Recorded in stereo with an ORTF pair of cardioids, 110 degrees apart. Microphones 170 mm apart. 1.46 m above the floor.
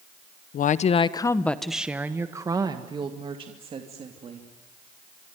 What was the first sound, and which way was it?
A woman speaking, 55° left.